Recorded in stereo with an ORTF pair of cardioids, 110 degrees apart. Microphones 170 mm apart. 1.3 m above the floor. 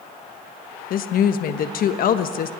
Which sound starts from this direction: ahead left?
A woman speaking, at 0.9 s.